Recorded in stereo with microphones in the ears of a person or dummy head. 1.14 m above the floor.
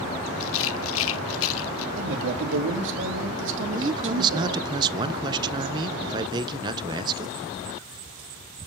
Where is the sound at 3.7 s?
20° right (ahead or behind), 0.7 m.